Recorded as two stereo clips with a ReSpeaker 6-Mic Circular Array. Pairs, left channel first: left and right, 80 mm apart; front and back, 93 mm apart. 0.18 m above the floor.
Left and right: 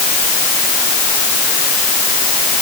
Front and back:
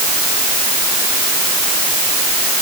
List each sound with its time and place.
Only background noise.